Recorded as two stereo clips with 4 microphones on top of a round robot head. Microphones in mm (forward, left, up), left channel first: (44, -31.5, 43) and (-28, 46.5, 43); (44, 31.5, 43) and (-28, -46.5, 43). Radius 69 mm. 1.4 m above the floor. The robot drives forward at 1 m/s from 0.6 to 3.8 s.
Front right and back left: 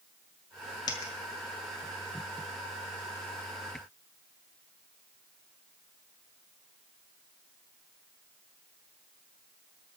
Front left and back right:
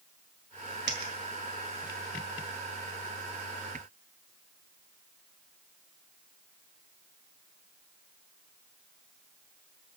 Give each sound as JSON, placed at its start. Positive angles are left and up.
{"t": 0.9, "sound": "a dropped coin", "azimuth_deg": -95, "distance_m": 1.5}